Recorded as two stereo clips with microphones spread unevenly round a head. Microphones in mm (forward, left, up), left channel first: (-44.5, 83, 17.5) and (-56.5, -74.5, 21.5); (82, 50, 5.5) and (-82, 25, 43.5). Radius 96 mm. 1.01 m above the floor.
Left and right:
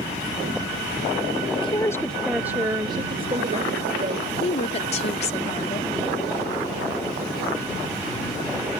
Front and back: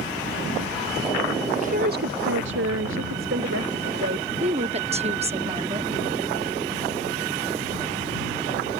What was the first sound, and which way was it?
A woman speaking, 135° left.